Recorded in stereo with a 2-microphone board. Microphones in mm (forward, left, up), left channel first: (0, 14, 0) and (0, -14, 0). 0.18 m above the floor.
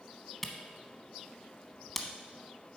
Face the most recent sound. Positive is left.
turn(degrees=5)  # may be behind; listen again after turning